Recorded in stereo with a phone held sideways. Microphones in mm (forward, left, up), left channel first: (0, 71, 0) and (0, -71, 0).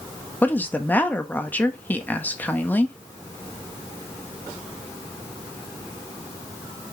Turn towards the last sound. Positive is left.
turn(degrees=10)  # may be behind; listen again after turning